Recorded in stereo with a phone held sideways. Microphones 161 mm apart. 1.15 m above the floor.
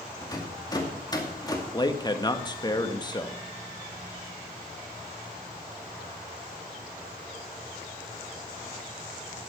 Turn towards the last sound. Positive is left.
turn(degrees=25)  # may be behind; listen again after turning